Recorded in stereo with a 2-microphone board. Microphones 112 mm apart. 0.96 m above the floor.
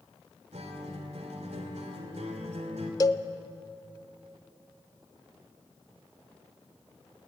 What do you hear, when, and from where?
0.5 s a guitar: 80° right, 3 m
3.0 s a cowbell: 35° left (ahead or behind), 0.6 m